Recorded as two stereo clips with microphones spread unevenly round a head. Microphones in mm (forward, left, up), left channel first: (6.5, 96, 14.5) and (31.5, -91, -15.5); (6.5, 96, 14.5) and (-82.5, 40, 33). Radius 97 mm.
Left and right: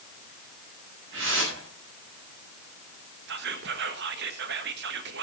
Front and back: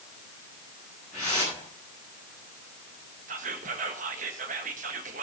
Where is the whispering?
125° right, 1.4 m.